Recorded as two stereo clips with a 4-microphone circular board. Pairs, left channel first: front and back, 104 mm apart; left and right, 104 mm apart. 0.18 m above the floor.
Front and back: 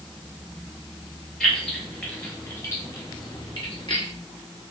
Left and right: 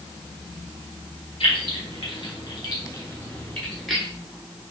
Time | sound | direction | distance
1.4 | keys jangling | 85° left | 2.5 m